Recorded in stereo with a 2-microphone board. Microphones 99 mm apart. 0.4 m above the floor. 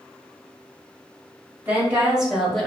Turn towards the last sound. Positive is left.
turn(degrees=10)  # may be behind; listen again after turning